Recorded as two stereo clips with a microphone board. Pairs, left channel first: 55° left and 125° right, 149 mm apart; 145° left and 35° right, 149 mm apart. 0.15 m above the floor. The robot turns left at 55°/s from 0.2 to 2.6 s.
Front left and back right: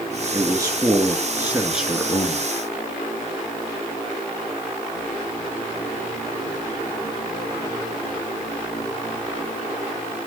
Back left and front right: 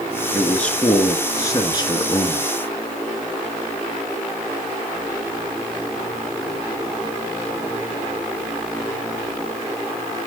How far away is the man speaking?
About 1.7 m.